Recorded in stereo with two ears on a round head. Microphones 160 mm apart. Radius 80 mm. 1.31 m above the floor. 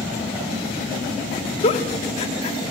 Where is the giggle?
35° left (ahead or behind), 1.0 m.